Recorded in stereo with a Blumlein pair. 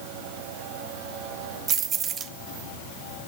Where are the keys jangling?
25° right, 1.0 m.